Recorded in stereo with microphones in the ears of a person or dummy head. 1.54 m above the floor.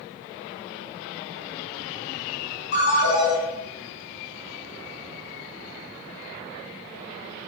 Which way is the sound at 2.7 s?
70° left (ahead or behind).